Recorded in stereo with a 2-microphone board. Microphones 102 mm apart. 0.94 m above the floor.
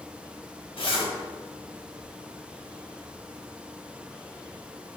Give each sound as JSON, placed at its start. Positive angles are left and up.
{"t": 0.8, "sound": "a zipper", "side_deg": 60, "distance_m": 1.1}